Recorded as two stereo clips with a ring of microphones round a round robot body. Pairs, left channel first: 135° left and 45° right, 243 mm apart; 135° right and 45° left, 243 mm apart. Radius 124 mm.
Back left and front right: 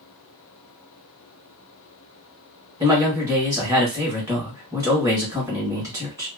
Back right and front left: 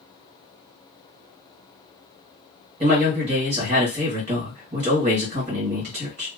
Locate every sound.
2.8 s a man speaking: 20° left, 1.5 m